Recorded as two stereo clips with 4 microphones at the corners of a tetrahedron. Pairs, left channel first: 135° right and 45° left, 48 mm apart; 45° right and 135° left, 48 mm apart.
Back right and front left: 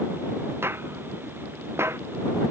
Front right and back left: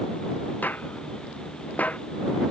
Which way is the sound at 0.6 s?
10° left.